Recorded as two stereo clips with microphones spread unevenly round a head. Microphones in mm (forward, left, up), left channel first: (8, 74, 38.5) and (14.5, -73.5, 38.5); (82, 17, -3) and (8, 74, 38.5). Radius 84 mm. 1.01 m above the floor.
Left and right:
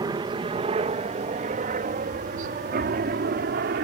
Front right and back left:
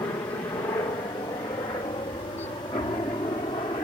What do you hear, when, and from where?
0.0 s a helicopter: 50° right; by 3.8 s 95° right